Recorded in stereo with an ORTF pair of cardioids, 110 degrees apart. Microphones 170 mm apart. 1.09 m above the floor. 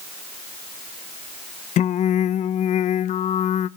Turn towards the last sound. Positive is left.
turn(degrees=50)